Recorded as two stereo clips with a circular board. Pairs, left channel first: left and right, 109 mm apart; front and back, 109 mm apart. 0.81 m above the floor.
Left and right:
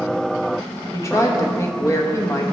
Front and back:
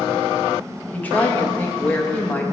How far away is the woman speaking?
About 0.9 m.